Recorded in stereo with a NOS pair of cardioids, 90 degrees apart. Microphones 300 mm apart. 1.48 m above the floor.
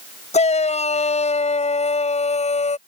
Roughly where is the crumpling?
I don't hear crumpling.